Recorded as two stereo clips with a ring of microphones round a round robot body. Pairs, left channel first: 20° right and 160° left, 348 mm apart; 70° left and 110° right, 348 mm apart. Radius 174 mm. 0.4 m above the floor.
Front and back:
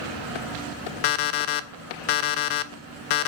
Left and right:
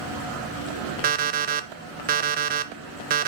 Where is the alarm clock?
45° right, 0.5 m.